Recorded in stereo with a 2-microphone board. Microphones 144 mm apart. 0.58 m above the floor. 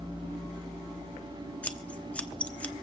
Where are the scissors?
10° left (ahead or behind), 0.8 m.